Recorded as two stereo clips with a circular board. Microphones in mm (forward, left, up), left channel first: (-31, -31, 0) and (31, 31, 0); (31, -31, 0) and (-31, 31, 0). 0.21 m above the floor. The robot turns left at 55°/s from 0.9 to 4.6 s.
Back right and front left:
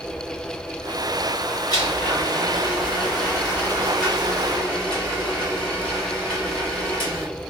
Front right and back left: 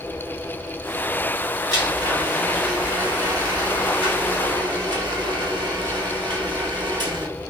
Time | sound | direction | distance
1.7 | a blender | 90° right | 1.6 m